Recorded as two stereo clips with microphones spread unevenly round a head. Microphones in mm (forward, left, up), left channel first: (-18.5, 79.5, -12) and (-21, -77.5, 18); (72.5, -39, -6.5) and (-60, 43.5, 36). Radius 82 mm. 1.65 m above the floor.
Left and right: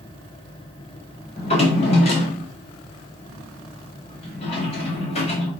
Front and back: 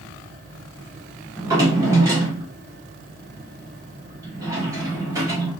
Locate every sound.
1.4 s a drawer: 125° left, 0.8 m